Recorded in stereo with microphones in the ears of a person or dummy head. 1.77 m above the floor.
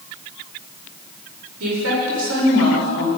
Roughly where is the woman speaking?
Right.